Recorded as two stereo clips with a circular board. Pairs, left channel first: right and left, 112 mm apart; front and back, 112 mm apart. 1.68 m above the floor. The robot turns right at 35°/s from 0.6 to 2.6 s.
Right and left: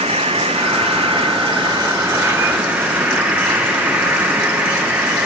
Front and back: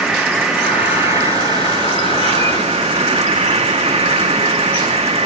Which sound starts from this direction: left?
An insect, at 0.0 s.